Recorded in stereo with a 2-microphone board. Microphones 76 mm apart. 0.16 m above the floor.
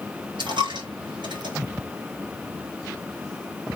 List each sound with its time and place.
0.4 s a dropped coin: 85° right, 5.5 m